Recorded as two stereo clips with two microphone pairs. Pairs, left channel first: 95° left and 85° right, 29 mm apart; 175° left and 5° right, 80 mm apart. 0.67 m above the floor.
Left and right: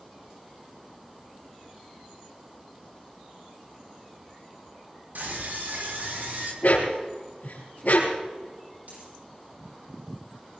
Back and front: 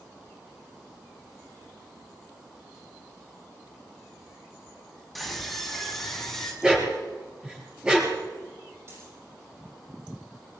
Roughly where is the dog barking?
Left.